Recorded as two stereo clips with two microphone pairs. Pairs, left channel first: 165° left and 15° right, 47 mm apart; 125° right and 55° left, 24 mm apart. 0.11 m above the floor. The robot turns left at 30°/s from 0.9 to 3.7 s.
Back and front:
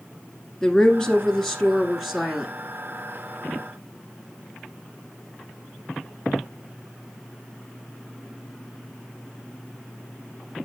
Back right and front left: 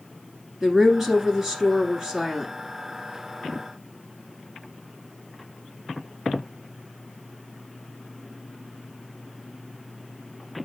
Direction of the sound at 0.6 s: 105° left.